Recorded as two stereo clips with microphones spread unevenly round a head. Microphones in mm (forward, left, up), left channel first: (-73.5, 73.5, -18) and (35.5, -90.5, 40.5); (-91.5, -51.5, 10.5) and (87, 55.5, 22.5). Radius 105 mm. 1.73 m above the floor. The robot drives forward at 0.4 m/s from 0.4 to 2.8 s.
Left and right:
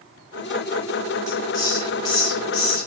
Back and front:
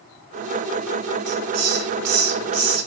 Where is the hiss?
45° left, 4 m; by 2.9 s 50° left, 3.5 m.